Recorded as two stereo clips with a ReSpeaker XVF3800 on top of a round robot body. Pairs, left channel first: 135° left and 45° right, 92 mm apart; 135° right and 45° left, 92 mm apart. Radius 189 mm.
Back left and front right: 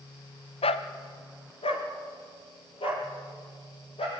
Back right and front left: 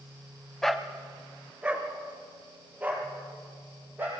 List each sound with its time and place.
0.6 s a dog barking: 140° left, 0.7 m; by 4.2 s 115° left, 5 m